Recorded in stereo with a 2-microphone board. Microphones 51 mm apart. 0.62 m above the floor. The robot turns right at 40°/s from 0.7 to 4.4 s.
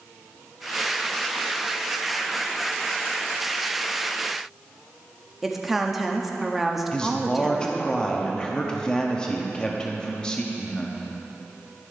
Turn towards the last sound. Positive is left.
turn(degrees=15)  # may be behind; listen again after turning